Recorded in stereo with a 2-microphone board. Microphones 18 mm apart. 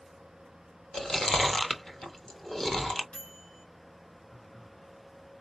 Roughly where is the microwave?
Left.